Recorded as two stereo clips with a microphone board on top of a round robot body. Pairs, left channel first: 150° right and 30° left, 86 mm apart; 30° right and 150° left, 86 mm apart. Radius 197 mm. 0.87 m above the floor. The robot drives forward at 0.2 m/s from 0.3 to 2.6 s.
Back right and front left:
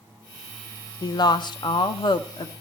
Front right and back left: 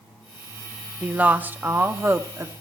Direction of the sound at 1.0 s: 140° right.